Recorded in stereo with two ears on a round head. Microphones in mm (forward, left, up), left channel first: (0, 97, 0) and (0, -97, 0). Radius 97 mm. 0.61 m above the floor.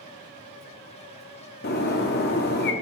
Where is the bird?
50° left (ahead or behind), 0.8 m.